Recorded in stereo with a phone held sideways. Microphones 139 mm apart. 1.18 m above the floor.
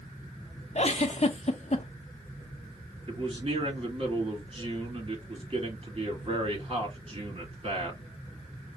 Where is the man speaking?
40° right (ahead or behind), 2.5 m.